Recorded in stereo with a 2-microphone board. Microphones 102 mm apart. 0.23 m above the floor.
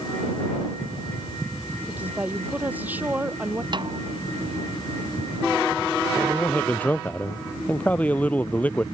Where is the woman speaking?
15° right (ahead or behind).